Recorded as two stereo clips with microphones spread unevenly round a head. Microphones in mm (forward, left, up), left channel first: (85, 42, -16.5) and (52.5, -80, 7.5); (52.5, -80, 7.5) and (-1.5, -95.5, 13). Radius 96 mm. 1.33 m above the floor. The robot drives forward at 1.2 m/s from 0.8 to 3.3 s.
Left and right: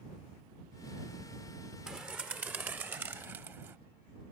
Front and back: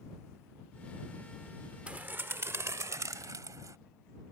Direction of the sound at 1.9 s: 155° right.